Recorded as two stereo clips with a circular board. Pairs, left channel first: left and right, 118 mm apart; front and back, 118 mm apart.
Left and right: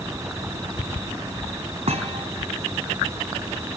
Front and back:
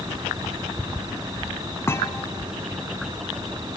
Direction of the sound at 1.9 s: 65° right.